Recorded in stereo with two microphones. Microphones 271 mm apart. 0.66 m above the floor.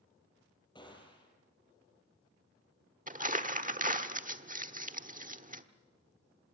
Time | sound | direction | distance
0.8 | a gunshot | 15° left (ahead or behind) | 6 m
3.1 | crumpling | 30° right (ahead or behind) | 1.1 m